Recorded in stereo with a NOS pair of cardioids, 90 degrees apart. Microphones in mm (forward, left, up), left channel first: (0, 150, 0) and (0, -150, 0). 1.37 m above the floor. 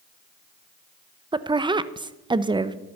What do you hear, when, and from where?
1.3 s a woman speaking: 15° right, 0.8 m